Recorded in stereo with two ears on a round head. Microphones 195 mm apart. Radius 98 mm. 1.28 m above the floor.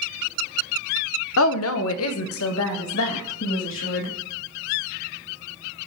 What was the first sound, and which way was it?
A woman speaking, 65° left (ahead or behind).